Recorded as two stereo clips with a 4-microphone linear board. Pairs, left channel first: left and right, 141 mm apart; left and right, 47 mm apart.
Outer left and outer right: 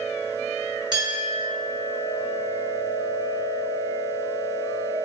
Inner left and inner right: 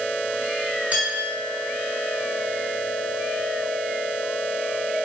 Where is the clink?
30° right (ahead or behind), 1.7 m.